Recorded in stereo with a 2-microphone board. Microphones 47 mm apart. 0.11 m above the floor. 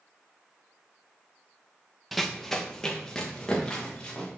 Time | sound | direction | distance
2.1 | running footsteps | centre (ahead or behind) | 0.7 m